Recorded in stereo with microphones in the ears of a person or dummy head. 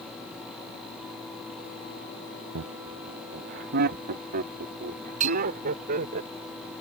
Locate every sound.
2.5 s laughter: 75° right (ahead or behind); by 6.2 s 45° right (ahead or behind)
5.2 s a bell: 35° right (ahead or behind)